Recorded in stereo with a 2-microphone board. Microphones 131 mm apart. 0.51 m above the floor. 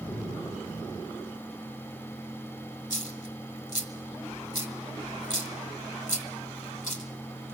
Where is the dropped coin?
80° left, 1.9 m.